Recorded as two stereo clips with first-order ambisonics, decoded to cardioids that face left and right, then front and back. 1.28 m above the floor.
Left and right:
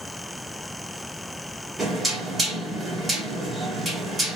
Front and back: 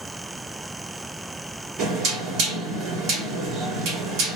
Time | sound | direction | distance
1.8 | knocking | 165° right | 1.6 m